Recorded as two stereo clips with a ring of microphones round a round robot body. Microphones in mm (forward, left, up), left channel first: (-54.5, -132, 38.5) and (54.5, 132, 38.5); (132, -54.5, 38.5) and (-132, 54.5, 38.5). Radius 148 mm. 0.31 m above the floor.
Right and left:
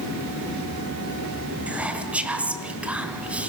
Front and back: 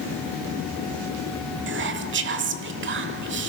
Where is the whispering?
150° left, 1.2 m.